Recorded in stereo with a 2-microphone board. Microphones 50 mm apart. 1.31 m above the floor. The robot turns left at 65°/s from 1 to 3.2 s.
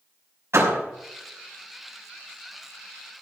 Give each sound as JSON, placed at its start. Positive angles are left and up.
{"t": 0.5, "sound": "a door slam", "side_deg": -65, "distance_m": 6.0}